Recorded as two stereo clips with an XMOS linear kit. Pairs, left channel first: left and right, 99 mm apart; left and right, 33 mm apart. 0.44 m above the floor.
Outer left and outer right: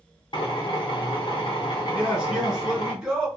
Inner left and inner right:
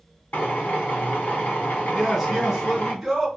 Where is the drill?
55° left (ahead or behind), 0.9 m.